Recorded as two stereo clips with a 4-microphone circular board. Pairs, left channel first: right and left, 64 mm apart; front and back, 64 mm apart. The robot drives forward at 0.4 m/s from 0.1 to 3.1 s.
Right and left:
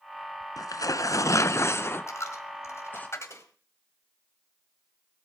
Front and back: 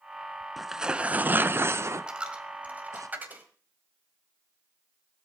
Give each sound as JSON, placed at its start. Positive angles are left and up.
{"t": 0.6, "sound": "tearing paper", "azimuth_deg": -90, "distance_m": 0.5}
{"t": 2.1, "sound": "a dropped coin", "azimuth_deg": -110, "distance_m": 1.7}